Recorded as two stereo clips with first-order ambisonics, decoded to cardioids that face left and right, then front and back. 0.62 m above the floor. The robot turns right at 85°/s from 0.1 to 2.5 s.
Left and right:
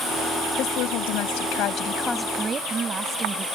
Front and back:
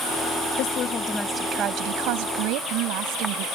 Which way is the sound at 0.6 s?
35° left.